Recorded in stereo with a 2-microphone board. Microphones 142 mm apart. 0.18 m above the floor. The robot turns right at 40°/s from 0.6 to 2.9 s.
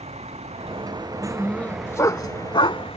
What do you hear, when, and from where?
0.0 s a vehicle: 50° right; by 3.0 s 45° left
1.2 s a dog barking: centre (ahead or behind); by 3.0 s 45° left (ahead or behind)